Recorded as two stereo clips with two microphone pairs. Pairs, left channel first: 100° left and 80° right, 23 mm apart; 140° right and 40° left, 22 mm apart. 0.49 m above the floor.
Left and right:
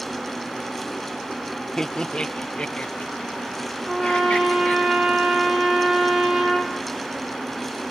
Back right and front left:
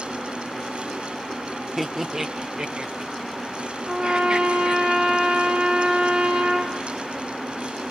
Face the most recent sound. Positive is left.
turn(degrees=0)